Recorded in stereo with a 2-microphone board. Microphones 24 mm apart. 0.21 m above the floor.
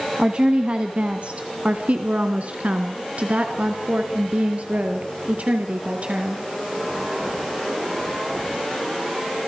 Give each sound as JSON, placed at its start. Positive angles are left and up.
{"t": 0.2, "sound": "a woman speaking", "side_deg": -35, "distance_m": 2.0}